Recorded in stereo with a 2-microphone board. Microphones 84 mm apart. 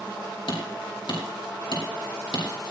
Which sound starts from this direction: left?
Hammering, at 0.5 s.